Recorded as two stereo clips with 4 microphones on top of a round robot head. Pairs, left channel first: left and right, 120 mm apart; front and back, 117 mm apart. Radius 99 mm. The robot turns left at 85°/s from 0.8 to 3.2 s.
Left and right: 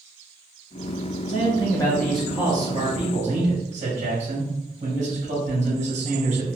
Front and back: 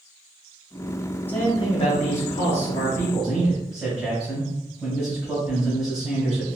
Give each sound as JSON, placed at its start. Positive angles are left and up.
{"t": 1.3, "sound": "a man speaking", "azimuth_deg": 75, "distance_m": 1.6}